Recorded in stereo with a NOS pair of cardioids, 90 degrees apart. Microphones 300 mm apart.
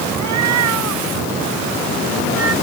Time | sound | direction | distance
0.1 | a cat meowing | 70° right | ?